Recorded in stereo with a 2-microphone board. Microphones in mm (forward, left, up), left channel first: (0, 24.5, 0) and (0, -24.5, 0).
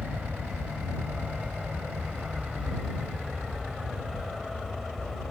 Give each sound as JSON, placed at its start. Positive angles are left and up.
{"t": 0.0, "sound": "an aircraft", "side_deg": -25}